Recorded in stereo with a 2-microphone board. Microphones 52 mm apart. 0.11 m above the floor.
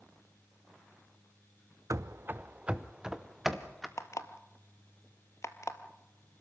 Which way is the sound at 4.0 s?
65° left (ahead or behind).